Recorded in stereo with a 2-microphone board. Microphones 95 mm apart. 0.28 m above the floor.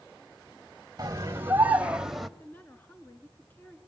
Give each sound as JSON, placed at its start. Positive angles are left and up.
{"t": 1.0, "sound": "a scream", "side_deg": -35, "distance_m": 1.1}
{"t": 2.4, "sound": "a woman speaking", "side_deg": 20, "distance_m": 3.5}